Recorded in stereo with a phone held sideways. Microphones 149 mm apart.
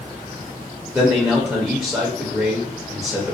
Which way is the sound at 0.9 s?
15° right (ahead or behind).